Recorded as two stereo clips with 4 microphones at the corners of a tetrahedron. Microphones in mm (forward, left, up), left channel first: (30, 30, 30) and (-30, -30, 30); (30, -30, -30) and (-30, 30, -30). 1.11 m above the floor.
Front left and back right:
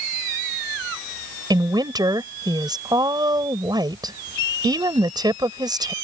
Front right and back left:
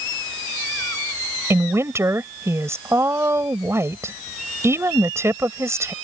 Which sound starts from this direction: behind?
A woman speaking, at 1.5 s.